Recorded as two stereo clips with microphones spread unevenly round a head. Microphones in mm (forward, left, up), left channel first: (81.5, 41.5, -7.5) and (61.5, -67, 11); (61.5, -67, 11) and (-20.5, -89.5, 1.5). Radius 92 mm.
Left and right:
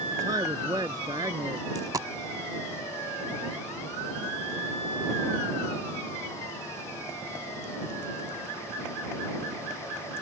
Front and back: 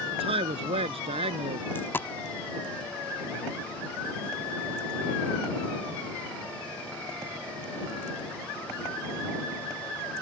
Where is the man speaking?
170° right; by 1.6 s 175° right.